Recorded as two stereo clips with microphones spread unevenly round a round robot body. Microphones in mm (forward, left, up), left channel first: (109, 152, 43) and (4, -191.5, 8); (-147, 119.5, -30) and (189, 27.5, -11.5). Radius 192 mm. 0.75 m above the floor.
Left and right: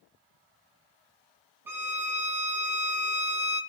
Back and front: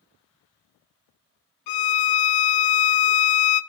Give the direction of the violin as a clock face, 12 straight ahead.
6 o'clock.